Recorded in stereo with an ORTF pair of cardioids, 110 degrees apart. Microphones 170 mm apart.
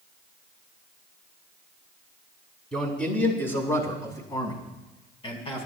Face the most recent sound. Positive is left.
turn(degrees=40)